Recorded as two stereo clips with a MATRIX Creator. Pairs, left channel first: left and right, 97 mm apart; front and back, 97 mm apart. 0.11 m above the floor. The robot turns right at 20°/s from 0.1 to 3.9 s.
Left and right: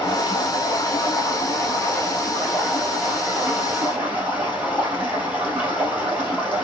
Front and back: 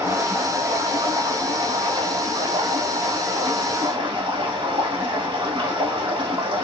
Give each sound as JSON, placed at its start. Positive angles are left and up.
{"t": 0.0, "sound": "running water", "azimuth_deg": 120, "distance_m": 2.5}